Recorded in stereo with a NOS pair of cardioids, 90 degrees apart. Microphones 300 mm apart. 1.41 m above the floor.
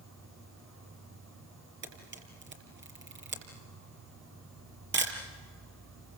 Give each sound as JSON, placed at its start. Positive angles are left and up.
{"t": 0.0, "sound": "an insect", "azimuth_deg": -60, "distance_m": 5.5}
{"t": 1.8, "sound": "a camera shutter", "azimuth_deg": -40, "distance_m": 6.0}